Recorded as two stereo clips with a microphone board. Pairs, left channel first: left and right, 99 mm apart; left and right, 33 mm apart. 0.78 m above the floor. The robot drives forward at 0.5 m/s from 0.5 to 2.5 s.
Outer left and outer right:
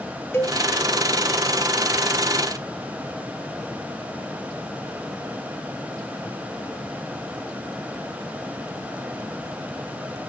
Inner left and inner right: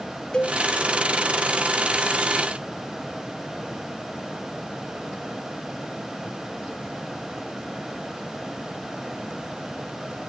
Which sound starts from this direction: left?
A cowbell, at 0.3 s.